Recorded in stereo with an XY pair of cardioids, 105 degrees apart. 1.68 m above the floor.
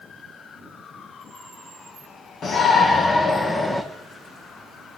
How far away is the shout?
About 2.5 m.